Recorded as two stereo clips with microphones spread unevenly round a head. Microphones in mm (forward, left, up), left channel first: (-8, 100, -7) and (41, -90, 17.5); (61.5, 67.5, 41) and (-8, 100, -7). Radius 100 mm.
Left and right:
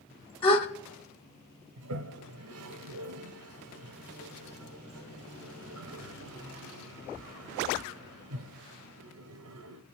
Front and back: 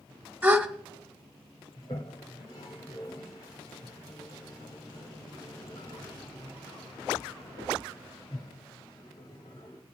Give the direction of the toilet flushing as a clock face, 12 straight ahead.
3 o'clock.